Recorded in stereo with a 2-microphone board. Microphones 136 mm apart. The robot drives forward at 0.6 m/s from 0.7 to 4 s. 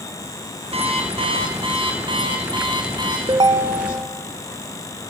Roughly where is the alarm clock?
Right.